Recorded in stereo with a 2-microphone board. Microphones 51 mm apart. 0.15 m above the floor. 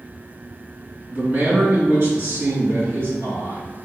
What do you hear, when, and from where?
1.1 s a man speaking: 30° right (ahead or behind), 1.3 m; by 3.6 s 65° right (ahead or behind), 2.5 m